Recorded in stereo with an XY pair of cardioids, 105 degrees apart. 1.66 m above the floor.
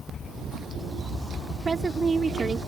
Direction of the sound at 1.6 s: 30° right.